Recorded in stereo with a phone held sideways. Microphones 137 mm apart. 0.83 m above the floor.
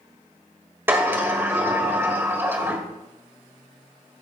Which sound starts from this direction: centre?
A sliding door, at 0.9 s.